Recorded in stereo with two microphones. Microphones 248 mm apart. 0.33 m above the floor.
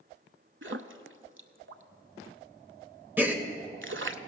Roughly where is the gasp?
Centre.